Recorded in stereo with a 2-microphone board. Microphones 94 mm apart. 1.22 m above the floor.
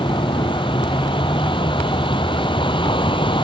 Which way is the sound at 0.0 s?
60° left (ahead or behind).